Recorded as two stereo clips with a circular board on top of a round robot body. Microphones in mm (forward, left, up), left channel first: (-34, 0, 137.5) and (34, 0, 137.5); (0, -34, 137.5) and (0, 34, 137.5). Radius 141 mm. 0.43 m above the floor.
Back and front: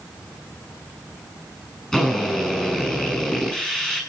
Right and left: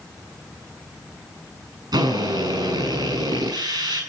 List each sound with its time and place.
1.9 s a drill: 105° left, 7 m